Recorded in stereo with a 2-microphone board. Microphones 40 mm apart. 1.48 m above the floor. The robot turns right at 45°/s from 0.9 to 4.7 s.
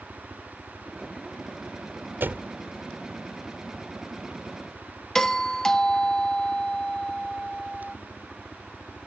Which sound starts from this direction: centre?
A doorbell, at 5.2 s.